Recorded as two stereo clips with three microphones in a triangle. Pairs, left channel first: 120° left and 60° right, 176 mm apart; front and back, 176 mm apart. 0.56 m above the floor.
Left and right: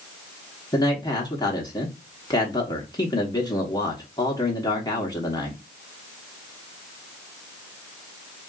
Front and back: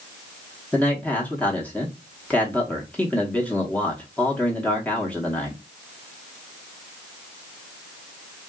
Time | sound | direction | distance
0.7 | a man speaking | 75° left | 0.8 m